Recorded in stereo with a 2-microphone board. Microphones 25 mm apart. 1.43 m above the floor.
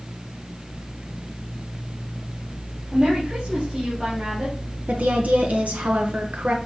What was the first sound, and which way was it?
A woman speaking, 50° right (ahead or behind).